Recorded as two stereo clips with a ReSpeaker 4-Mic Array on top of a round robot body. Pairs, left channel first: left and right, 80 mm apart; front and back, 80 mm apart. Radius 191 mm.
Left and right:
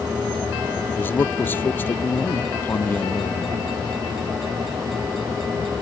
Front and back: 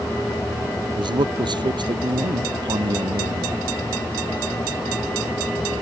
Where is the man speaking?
155° left.